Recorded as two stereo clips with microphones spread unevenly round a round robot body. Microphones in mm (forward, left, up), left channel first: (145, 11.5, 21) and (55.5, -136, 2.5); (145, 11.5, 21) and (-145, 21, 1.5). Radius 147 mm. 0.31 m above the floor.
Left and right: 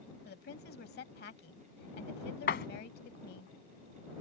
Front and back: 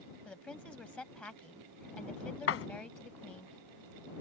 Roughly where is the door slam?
Ahead left.